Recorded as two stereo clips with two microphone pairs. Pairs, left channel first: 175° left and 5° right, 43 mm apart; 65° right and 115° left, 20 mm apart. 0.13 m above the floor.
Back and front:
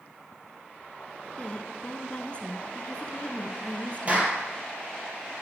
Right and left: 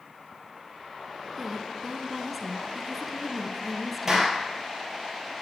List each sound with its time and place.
1.4 s a woman speaking: 165° right, 1.2 m
4.1 s a clap: 50° left, 3 m